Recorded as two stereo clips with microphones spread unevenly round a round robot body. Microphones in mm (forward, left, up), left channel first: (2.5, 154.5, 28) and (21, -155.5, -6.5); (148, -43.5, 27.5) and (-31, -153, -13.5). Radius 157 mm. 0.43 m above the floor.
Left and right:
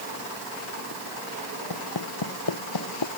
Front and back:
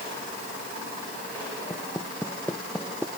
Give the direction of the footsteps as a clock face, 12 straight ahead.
8 o'clock.